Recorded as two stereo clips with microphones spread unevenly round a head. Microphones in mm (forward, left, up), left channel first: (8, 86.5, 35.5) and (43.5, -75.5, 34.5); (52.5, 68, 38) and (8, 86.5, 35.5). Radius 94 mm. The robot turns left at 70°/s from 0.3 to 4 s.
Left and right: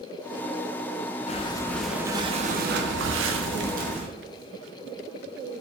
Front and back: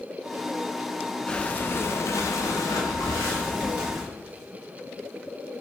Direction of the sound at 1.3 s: 55° left.